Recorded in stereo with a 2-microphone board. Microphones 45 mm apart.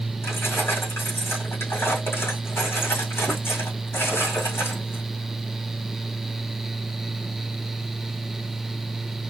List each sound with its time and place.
0.2 s keys jangling: 70° left (ahead or behind), 4.5 m